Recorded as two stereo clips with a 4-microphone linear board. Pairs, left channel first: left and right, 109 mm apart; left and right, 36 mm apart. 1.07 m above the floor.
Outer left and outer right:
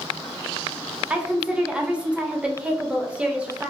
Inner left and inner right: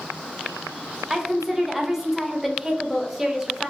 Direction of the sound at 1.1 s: 10° right (ahead or behind).